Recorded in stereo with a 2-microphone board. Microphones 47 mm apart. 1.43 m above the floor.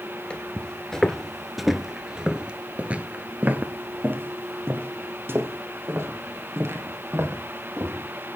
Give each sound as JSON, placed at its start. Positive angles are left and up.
{"t": 0.3, "sound": "footsteps", "side_deg": 25, "distance_m": 1.5}